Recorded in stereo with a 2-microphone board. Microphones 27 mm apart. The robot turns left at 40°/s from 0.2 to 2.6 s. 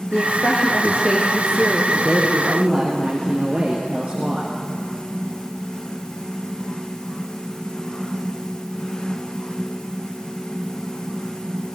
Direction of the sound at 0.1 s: 65° left.